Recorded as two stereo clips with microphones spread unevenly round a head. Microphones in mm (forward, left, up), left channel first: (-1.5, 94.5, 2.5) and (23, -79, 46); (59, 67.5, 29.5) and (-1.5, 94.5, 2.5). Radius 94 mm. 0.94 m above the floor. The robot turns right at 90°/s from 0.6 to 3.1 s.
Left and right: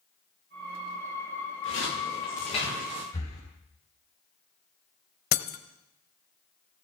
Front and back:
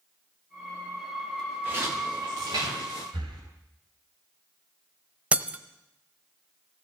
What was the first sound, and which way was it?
Footsteps, 85° left.